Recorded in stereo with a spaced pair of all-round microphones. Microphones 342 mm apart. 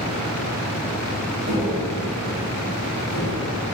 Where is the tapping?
45° right (ahead or behind), 5.5 m.